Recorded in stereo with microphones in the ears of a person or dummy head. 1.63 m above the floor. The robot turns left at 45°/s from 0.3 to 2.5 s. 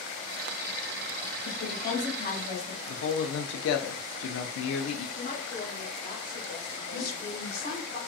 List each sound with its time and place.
1.4 s a woman speaking: 80° left, 1.3 m; by 2.8 s 35° left, 1.3 m
2.9 s a man speaking: 70° left (ahead or behind), 0.6 m
5.2 s a woman speaking: 40° left (ahead or behind), 1.3 m
6.9 s a woman speaking: 50° left (ahead or behind), 1.3 m